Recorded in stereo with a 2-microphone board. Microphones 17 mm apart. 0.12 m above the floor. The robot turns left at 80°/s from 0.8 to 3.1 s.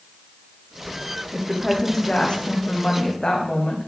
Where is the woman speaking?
165° right, 6 m; by 3.9 s 55° left, 6 m.